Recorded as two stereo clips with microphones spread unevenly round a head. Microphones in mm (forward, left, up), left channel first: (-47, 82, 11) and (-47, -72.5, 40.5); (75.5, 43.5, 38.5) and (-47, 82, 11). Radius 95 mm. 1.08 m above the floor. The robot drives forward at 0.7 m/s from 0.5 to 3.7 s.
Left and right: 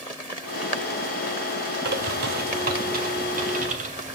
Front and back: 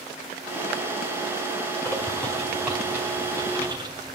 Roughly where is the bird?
Right.